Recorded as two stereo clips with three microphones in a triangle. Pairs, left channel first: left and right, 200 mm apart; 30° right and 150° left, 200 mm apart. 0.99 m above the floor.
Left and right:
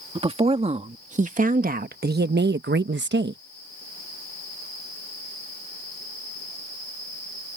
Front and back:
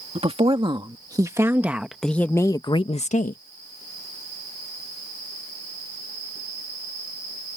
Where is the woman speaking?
150° right; by 3.4 s 70° right.